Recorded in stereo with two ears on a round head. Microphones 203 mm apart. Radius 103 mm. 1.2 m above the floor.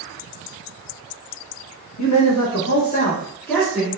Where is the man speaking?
90° left, 1.3 m; by 3.9 s 5° right (ahead or behind), 1.6 m.